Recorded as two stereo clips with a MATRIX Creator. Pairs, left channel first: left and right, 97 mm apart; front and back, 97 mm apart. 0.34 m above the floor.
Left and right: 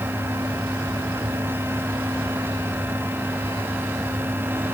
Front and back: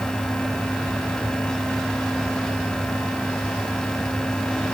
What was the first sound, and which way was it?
Only background noise.